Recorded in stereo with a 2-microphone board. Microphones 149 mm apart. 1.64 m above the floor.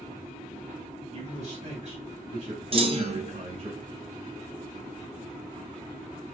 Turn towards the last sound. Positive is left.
turn(degrees=-40)  # may be behind; listen again after turning